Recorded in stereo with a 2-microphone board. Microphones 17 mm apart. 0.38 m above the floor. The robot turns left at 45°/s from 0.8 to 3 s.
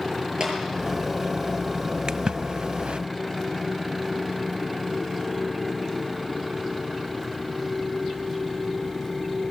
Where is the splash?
45° right (ahead or behind), 0.6 m; by 3.0 s 85° right, 0.6 m.